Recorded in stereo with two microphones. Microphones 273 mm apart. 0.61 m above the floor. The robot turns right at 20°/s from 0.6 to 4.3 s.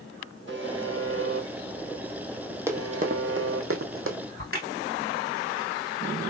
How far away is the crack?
About 2.0 m.